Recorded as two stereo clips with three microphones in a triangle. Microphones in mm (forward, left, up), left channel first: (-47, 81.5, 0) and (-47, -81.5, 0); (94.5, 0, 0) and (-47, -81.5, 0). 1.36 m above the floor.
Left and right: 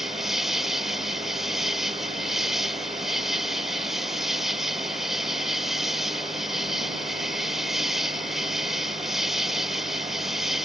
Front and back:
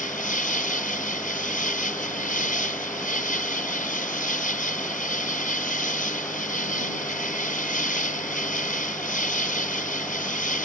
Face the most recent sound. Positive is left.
turn(degrees=0)